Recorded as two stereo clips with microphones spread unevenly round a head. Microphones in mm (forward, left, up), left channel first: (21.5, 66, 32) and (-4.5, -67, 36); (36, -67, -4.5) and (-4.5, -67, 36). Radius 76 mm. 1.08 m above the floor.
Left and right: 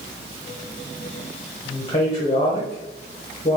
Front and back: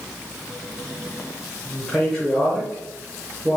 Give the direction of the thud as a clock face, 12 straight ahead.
No thud in this recording.